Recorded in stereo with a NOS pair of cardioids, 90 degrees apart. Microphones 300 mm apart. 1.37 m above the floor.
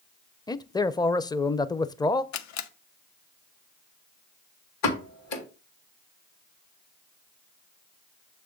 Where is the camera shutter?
65° left, 0.8 m.